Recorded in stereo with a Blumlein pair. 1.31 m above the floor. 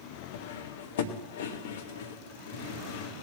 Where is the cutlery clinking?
60° left, 1.1 m.